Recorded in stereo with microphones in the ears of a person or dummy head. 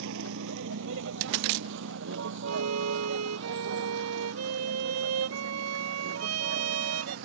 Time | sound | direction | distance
0.0 | a vehicle | 75° right (ahead or behind) | ?
2.5 | a violin | 85° right | ?